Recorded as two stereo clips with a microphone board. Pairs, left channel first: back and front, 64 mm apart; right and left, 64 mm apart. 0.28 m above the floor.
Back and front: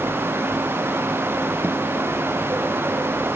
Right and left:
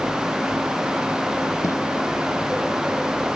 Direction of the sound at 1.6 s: 50° right.